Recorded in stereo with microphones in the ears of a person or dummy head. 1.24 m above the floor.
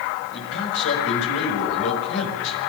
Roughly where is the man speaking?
Left.